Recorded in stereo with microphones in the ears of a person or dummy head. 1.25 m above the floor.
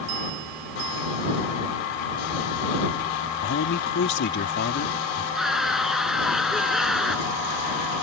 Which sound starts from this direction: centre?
A scream, at 5.3 s.